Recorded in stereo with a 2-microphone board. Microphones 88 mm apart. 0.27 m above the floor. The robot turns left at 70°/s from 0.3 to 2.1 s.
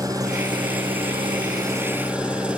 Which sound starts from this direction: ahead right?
An engine running, at 0.0 s.